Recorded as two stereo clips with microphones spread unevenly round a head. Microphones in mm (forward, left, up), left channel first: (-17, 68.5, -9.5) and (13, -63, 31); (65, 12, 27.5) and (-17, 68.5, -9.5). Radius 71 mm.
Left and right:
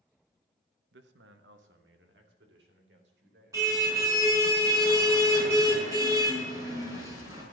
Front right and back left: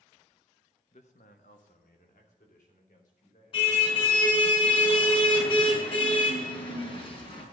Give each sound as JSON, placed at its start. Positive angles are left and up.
{"t": 0.9, "sound": "a man speaking", "azimuth_deg": -85, "distance_m": 0.9}
{"t": 3.5, "sound": "a car horn", "azimuth_deg": -10, "distance_m": 5.0}